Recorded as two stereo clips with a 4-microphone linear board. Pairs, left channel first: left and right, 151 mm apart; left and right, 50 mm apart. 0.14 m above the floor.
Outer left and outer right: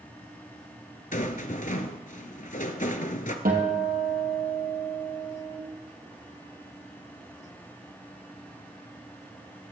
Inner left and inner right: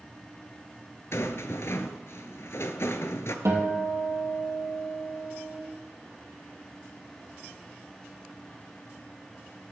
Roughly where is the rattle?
Left.